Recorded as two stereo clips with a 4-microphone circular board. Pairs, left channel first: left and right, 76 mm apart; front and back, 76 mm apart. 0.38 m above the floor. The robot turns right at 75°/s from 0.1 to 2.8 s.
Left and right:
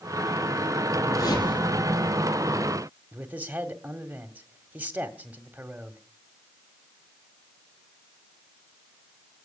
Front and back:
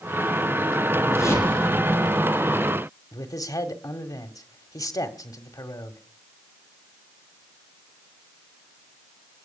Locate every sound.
1.1 s a whoosh: 40° left, 5 m; by 2.2 s 125° left, 5 m
3.1 s a man speaking: 25° right, 2.0 m